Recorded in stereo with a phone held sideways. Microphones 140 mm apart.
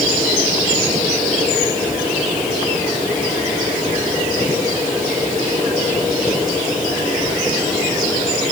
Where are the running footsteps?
I don't hear running footsteps.